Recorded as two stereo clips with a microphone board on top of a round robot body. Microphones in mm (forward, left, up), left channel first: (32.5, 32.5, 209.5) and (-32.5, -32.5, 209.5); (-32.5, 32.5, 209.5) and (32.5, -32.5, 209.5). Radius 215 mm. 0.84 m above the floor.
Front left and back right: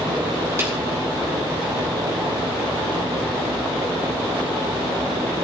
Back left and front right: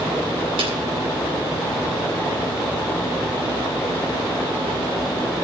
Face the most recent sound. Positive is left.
turn(degrees=-70)